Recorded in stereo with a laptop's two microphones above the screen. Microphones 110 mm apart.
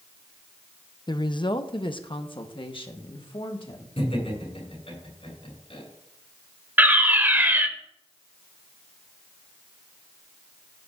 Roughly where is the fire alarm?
Centre.